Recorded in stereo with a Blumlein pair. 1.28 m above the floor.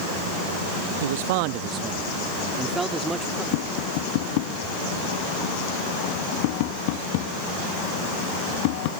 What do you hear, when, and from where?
1.0 s a man speaking: 60° right; by 3.4 s 5° right
3.5 s tapping: 45° left